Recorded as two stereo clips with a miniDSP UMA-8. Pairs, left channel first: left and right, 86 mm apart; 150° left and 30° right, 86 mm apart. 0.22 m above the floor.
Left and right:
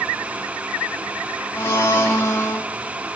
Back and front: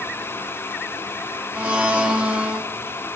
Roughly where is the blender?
Ahead left.